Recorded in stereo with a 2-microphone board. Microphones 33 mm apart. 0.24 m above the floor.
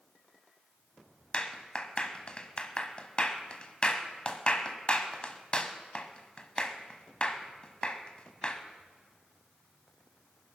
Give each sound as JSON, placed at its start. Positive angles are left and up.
{"t": 1.3, "sound": "a clap", "side_deg": 35, "distance_m": 1.3}